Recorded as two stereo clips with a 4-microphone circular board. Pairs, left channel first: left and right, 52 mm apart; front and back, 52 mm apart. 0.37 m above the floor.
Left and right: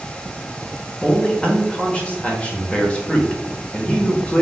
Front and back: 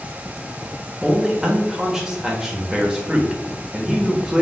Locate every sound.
1.0 s a man speaking: 110° left, 1.0 m